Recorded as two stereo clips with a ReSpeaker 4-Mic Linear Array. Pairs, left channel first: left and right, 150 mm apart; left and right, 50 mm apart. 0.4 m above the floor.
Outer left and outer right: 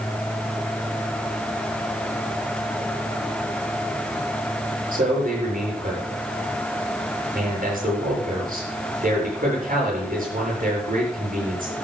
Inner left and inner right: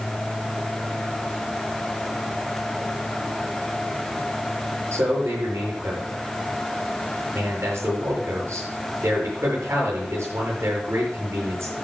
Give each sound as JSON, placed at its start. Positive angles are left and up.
{"t": 4.9, "sound": "a man speaking", "side_deg": -65, "distance_m": 7.5}